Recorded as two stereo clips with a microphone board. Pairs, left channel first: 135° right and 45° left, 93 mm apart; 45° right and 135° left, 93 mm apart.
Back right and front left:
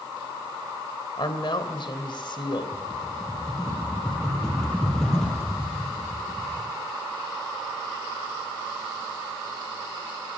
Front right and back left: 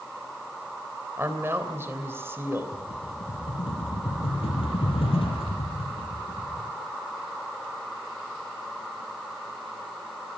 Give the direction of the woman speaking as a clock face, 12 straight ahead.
5 o'clock.